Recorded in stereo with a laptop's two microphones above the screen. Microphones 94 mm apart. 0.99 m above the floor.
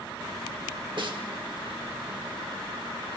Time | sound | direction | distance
1.0 | a snare drum | 55° right (ahead or behind) | 1.1 m